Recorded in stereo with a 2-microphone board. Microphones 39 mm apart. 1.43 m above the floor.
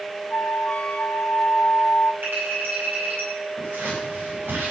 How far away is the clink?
About 9.5 m.